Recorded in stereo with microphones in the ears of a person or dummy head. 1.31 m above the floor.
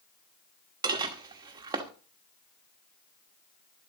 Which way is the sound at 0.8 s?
20° right (ahead or behind).